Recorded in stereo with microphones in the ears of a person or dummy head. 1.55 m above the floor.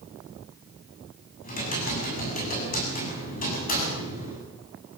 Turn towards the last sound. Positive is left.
turn(degrees=45)  # may be behind; listen again after turning